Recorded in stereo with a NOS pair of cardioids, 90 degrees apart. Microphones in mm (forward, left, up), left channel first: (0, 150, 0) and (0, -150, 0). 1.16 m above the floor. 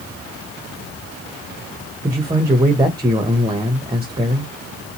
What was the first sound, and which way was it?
A man speaking, 15° right.